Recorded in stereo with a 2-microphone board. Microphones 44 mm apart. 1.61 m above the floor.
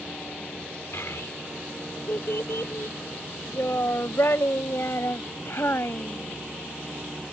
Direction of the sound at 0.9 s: 70° left (ahead or behind).